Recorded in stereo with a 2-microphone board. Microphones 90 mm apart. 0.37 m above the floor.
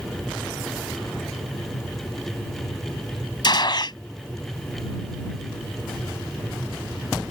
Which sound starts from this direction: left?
A gunshot, at 3.4 s.